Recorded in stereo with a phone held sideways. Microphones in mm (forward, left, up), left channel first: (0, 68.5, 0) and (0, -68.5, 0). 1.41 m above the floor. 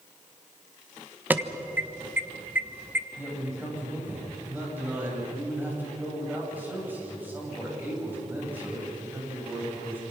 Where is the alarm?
15° right (ahead or behind), 1.1 m.